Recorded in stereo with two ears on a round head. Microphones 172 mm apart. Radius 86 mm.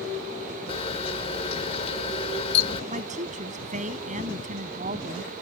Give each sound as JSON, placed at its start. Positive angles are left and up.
{"t": 0.7, "sound": "a camera shutter", "side_deg": 30}
{"t": 2.9, "sound": "a woman speaking", "side_deg": -40}